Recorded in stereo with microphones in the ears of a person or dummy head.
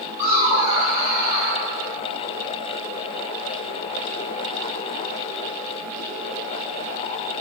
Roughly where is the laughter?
Left.